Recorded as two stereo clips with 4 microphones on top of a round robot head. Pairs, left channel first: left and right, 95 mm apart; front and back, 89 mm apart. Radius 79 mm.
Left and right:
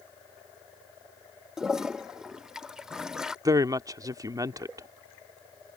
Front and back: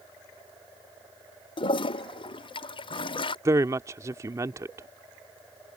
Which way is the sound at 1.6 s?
5° right.